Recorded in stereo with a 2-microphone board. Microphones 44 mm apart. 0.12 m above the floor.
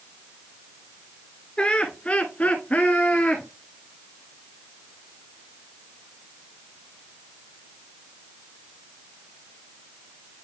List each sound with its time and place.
1.6 s laughter: 20° left (ahead or behind), 1.6 m; by 3.5 s 30° left (ahead or behind), 1.8 m